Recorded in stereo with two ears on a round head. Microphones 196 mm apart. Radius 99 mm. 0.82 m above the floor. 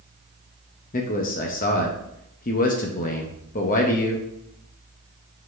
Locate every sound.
0.9 s a man speaking: 35° left (ahead or behind), 0.8 m